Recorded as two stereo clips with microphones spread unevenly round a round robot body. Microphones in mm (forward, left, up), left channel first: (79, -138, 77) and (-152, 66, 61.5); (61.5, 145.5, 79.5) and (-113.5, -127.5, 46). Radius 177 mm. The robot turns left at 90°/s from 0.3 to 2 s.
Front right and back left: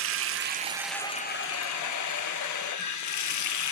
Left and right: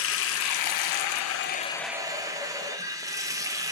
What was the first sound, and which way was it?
Running water, 105° left.